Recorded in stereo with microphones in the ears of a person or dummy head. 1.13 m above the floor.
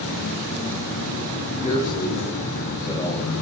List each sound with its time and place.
0.0 s an insect: 55° left (ahead or behind), 9 m
1.6 s a man speaking: 30° left (ahead or behind), 8 m